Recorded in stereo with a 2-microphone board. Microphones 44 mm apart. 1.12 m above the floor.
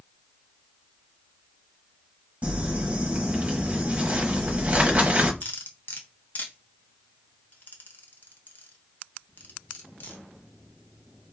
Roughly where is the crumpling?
Right.